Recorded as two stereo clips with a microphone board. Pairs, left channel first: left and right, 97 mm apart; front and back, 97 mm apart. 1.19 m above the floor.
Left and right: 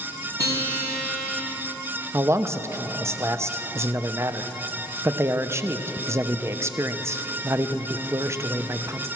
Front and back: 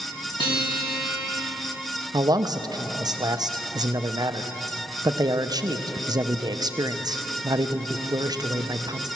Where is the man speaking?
145° right, 0.6 m.